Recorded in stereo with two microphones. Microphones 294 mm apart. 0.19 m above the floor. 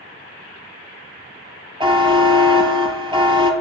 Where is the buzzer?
20° right (ahead or behind), 0.5 m.